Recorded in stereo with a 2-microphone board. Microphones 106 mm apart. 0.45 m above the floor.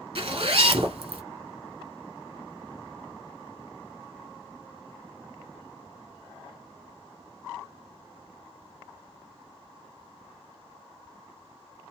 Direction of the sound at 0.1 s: 60° right (ahead or behind).